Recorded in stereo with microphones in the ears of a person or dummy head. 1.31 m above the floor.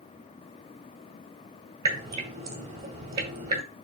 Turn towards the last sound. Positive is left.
turn(degrees=-25)  # may be behind; listen again after turning